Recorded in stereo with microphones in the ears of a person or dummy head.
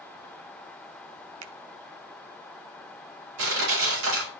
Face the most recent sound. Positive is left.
turn(degrees=-80)